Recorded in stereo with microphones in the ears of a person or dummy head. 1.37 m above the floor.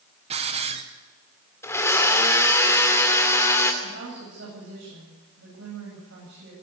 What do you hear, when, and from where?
0.3 s a hiss: 35° right (ahead or behind), 1.1 m
1.6 s a blender: 15° left (ahead or behind), 3 m
3.8 s a woman speaking: 80° right, 8.5 m